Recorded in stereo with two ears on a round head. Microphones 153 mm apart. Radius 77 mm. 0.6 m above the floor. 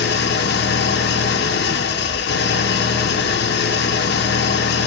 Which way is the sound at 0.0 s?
65° left (ahead or behind).